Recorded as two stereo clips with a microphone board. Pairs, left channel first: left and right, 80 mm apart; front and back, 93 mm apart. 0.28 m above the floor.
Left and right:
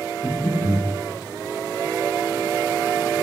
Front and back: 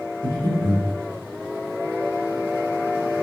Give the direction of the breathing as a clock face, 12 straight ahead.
7 o'clock.